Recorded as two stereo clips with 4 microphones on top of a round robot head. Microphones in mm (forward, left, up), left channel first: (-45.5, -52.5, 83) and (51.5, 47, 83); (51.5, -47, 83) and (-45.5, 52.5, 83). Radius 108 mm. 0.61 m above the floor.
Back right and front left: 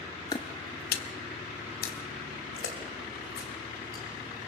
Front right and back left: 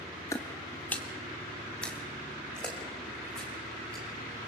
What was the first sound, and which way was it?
Footsteps, 95° right.